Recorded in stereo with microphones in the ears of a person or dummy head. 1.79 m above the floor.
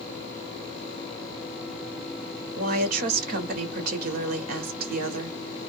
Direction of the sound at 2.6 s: 45° right (ahead or behind).